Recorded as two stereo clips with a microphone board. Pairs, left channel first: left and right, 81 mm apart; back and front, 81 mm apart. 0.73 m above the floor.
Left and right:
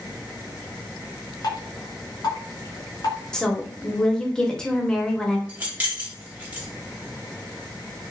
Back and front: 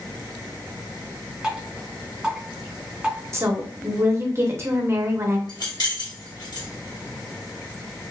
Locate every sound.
1.4 s dripping: 80° left, 1.3 m
3.3 s a woman speaking: 20° left, 0.7 m
5.5 s keys jangling: 160° right, 1.1 m